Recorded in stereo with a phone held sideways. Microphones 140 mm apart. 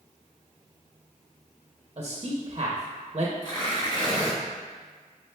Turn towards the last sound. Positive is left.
turn(degrees=35)  # may be behind; listen again after turning